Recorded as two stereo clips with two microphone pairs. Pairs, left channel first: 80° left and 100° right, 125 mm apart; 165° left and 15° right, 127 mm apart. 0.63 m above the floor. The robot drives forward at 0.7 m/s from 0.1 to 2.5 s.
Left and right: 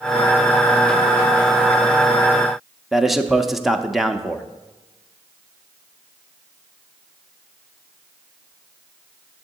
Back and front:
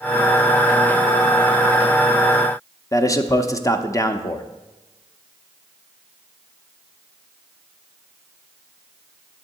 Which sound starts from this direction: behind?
A man speaking, at 2.9 s.